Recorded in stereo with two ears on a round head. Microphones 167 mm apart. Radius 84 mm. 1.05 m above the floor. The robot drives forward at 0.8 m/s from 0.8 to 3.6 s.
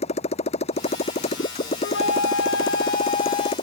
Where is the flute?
60° left (ahead or behind); by 3.5 s 35° left (ahead or behind).